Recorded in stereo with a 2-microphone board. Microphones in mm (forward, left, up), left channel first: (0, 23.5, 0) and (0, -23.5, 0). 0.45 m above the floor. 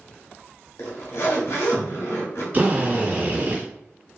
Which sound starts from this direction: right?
A drill, at 2.5 s.